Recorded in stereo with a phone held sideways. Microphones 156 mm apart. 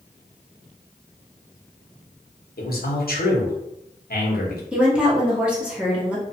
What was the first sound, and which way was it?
A man speaking, 75° left (ahead or behind).